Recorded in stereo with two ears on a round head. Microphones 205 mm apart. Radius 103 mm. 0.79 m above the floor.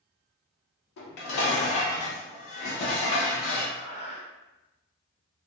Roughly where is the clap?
No clap in this recording.